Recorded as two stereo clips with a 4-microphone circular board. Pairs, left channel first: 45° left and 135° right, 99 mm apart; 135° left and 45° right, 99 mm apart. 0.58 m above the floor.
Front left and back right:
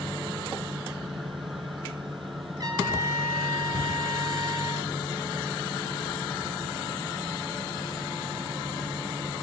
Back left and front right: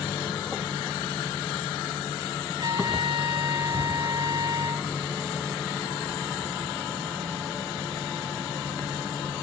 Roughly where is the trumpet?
Right.